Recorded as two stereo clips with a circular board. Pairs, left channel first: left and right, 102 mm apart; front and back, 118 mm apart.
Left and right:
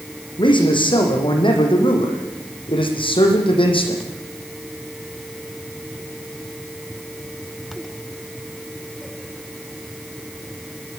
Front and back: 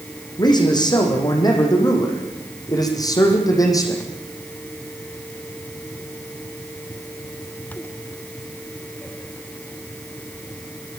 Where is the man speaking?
55° left, 9.5 m; by 4.0 s 60° left, 7.5 m.